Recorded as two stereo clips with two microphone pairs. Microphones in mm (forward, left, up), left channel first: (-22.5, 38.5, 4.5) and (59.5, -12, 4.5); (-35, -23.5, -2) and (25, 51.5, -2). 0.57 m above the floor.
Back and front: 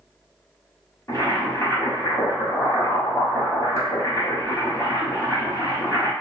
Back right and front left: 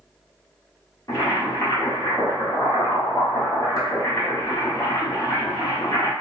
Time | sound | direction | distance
1.1 | boiling | 165° right | 1.0 m